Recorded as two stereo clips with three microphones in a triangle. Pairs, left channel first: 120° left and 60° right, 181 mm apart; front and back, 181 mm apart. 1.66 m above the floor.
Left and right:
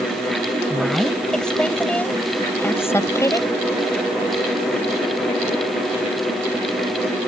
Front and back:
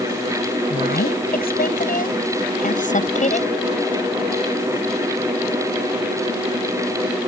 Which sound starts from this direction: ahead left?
A woman speaking, at 0.7 s.